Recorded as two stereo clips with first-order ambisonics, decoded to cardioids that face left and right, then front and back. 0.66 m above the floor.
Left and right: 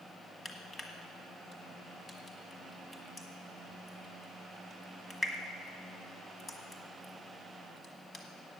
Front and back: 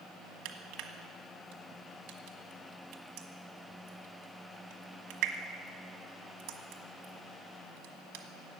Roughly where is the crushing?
Behind.